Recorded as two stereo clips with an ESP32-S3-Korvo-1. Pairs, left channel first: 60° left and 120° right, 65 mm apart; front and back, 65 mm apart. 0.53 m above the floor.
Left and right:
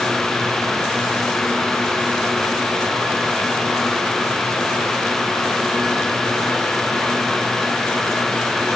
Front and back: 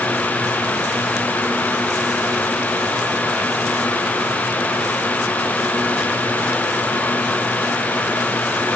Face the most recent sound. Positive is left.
No sound to turn to.